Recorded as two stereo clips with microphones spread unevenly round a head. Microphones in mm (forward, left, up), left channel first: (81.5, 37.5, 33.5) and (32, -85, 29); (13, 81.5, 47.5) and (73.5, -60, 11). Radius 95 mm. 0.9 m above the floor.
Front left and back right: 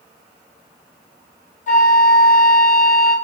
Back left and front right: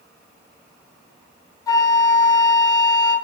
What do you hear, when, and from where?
1.7 s a flute: 50° left, 0.7 m